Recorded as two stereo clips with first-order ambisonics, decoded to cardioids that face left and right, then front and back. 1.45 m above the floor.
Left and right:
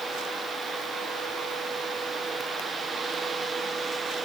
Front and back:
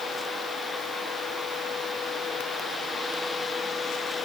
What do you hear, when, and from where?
Only background noise.